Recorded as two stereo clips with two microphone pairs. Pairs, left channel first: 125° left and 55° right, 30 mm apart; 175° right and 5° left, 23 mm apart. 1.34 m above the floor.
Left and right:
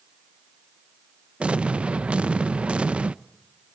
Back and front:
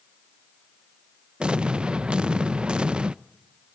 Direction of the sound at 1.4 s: 20° right.